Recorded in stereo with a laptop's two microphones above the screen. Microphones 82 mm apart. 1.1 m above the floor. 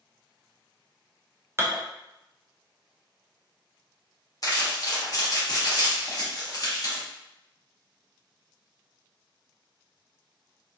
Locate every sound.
1.6 s dishes clattering: 30° right (ahead or behind), 0.5 m
4.4 s crumpling: 45° left (ahead or behind), 0.8 m